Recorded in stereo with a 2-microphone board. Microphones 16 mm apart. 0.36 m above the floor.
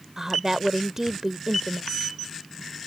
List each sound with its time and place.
0.2 s a woman speaking: 20° right (ahead or behind)